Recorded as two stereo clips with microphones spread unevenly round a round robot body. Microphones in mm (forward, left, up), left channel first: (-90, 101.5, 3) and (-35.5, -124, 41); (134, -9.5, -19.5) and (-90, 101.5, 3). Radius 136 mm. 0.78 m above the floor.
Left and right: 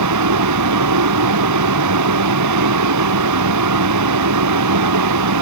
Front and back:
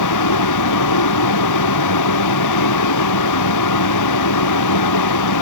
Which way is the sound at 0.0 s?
50° right.